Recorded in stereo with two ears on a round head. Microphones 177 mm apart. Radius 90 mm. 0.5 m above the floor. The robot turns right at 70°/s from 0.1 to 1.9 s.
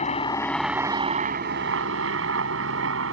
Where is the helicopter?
35° left (ahead or behind); by 3.1 s 70° right (ahead or behind).